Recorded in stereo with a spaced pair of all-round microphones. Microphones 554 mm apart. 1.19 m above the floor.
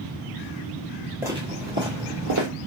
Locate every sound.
1.2 s footsteps: 5° right (ahead or behind), 1.2 m; by 2.5 s 35° right (ahead or behind), 1.4 m